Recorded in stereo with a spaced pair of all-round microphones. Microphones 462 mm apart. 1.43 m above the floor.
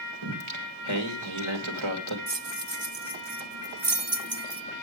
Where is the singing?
85° right, 2.0 m.